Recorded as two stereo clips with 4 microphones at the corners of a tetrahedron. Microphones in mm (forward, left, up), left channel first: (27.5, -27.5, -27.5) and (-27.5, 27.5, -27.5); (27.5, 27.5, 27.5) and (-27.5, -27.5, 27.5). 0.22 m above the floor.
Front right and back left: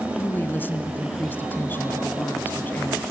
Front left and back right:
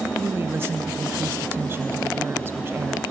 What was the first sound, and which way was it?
A woman speaking, 95° right.